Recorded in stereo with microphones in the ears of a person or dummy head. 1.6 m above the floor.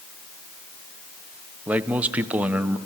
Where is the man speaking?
10° right (ahead or behind), 0.9 m.